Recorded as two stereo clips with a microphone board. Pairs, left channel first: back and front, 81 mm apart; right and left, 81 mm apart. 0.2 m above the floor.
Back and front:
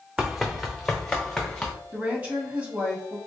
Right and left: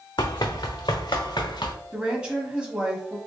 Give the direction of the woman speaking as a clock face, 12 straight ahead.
11 o'clock.